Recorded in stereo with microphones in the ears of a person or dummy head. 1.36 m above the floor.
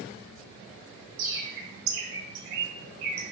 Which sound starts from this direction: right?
A bird, at 1.2 s.